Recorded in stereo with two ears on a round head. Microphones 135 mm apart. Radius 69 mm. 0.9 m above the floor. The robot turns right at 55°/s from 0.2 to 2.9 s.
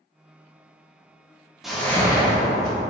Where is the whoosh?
5° right, 0.9 m; by 2.8 s 60° left, 0.9 m.